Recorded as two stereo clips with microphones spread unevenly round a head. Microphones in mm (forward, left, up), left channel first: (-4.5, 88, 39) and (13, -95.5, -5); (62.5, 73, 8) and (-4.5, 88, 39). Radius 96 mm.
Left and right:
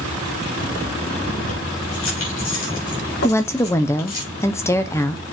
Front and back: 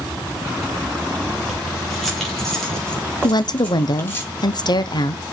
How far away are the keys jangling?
About 4 m.